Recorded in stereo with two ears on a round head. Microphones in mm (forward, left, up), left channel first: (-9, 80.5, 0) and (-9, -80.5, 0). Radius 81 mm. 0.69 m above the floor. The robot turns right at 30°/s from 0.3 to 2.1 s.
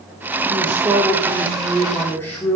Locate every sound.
0.5 s a man speaking: 35° right, 1.5 m; by 2.6 s 15° left, 1.5 m